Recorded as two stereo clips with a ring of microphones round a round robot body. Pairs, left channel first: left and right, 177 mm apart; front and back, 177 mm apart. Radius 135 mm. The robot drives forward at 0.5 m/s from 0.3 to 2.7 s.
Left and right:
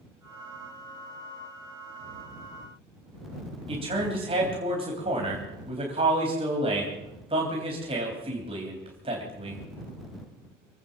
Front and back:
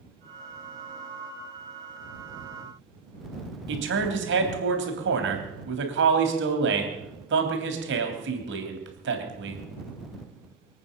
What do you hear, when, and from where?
3.7 s a man speaking: 155° right, 3 m